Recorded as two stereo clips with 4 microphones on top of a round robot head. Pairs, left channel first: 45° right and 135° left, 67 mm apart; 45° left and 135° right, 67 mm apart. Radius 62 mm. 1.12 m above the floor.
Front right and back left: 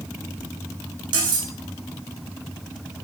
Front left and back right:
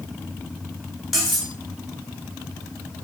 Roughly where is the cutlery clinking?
Behind left.